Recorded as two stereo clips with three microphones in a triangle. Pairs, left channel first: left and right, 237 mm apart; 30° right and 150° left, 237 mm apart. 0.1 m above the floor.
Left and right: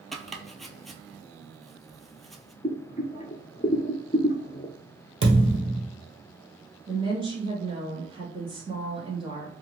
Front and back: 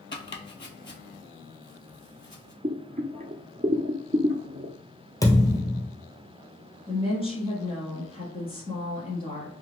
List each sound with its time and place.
0.1 s chopping: straight ahead, 0.6 m
2.6 s boiling: 125° left, 0.6 m
5.2 s a thud: 105° right, 1.3 m
6.9 s a woman speaking: 55° right, 1.5 m